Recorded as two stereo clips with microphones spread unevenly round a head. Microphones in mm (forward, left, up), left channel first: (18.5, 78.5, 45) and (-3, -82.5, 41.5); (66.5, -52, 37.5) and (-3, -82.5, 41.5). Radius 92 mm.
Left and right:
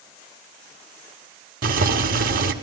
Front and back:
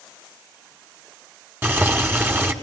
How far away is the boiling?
About 1.7 m.